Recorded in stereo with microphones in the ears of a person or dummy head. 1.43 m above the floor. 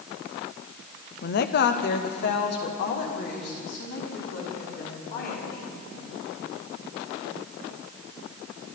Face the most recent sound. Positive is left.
turn(degrees=45)  # may be behind; listen again after turning